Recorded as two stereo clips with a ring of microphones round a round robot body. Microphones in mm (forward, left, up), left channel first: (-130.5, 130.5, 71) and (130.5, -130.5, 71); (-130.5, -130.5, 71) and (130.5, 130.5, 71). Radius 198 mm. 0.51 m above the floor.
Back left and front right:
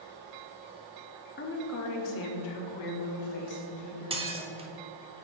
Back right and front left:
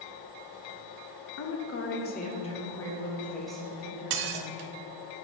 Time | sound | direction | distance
1.4 | a woman speaking | 170° right | 1.2 m
4.1 | dishes clattering | 30° left | 0.8 m